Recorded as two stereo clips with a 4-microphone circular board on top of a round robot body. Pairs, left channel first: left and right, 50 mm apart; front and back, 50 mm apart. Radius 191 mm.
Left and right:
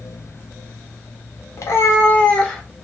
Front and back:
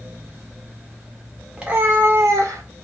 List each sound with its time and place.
1.6 s a cat meowing: 105° left, 0.8 m; by 2.6 s 175° left, 0.9 m